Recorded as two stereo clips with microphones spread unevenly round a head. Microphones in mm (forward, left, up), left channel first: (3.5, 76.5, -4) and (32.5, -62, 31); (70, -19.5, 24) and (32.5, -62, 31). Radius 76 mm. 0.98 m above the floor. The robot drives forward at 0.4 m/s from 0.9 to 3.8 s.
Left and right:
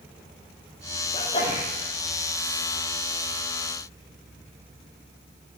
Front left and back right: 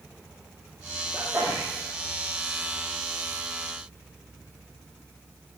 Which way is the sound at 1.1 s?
155° left.